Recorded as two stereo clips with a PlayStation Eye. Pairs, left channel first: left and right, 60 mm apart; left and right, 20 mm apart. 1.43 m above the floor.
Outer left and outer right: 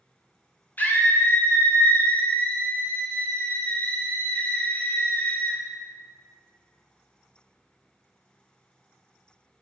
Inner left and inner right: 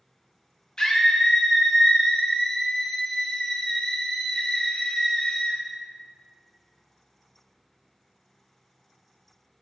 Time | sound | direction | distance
0.8 | a scream | 30° left (ahead or behind) | 0.6 m